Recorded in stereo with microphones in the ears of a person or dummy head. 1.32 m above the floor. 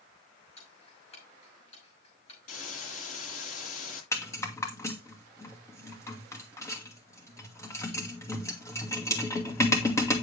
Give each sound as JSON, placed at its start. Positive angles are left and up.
{"t": 0.6, "sound": "ticking", "side_deg": 35, "distance_m": 5.5}
{"t": 2.5, "sound": "a hiss", "side_deg": 55, "distance_m": 7.5}
{"t": 4.1, "sound": "a rattle", "side_deg": 15, "distance_m": 1.9}